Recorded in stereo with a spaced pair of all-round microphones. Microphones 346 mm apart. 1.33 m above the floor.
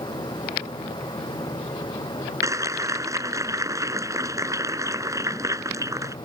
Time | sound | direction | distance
0.0 | a fan | 15° left (ahead or behind) | ?
2.4 | a clap | 10° right (ahead or behind) | ?